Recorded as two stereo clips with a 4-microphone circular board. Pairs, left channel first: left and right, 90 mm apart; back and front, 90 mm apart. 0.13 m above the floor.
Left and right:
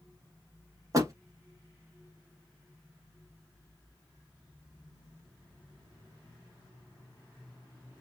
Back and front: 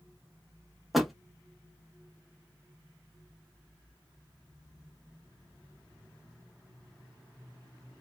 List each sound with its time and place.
0.9 s a door slam: 85° right, 0.9 m